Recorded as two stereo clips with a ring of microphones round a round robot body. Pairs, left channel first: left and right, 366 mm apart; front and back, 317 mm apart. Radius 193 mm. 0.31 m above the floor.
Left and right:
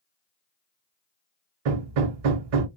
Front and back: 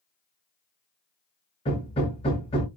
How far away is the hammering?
About 0.6 m.